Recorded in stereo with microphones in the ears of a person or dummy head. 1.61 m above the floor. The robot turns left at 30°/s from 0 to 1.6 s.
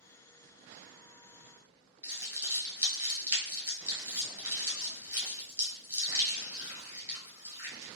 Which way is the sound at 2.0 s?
20° right (ahead or behind).